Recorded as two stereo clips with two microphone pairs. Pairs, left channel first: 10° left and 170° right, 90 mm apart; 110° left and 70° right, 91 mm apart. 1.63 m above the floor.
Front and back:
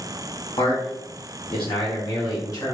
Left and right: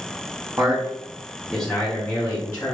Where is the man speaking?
5° right, 1.1 m; by 2.8 s 60° left, 1.3 m.